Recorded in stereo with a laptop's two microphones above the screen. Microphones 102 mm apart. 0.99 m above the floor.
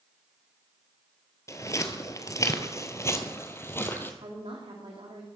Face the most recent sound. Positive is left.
turn(degrees=-65)  # may be behind; listen again after turning